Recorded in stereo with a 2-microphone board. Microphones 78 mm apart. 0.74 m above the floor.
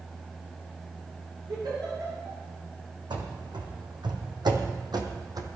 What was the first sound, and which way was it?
A giggle, 70° right (ahead or behind).